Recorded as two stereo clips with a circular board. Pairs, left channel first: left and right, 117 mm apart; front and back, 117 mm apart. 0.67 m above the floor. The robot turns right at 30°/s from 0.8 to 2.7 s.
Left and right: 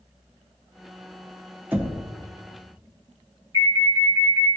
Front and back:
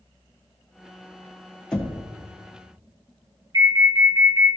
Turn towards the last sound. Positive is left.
turn(degrees=-140)